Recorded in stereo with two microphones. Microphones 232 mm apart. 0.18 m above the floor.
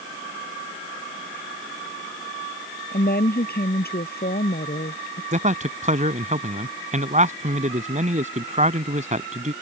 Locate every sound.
2.9 s a woman speaking: 45° left (ahead or behind)
5.3 s a man speaking: 30° right (ahead or behind)